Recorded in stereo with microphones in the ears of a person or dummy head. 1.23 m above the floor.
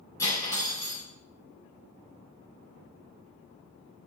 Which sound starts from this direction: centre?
Cutlery clinking, at 0.2 s.